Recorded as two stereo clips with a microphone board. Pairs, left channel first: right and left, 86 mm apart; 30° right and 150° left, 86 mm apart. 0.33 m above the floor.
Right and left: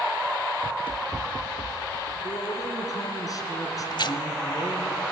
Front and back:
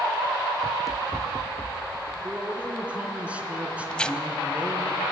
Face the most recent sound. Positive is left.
turn(degrees=-110)